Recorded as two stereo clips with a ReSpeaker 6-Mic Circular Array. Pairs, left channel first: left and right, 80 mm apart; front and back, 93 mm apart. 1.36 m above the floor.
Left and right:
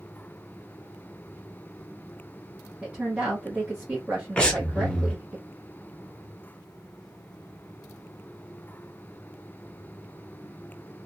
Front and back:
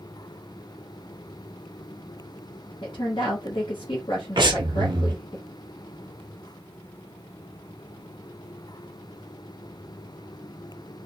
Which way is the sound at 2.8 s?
20° right.